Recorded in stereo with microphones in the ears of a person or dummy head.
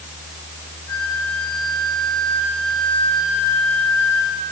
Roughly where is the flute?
Left.